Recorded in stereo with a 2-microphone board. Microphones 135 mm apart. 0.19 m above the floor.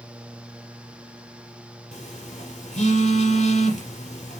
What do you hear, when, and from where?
1.9 s a phone buzzing: 75° left (ahead or behind), 4 m